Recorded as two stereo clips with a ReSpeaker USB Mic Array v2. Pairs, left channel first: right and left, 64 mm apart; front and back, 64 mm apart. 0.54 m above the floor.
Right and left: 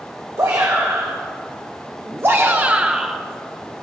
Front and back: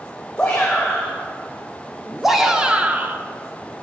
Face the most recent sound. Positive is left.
turn(degrees=180)